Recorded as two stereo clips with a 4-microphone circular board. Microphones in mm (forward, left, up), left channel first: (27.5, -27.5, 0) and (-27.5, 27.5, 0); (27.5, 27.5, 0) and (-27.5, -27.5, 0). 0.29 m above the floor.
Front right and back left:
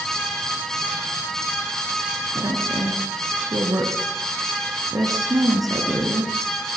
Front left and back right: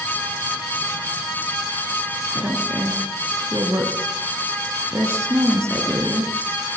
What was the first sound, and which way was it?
A woman speaking, 170° left.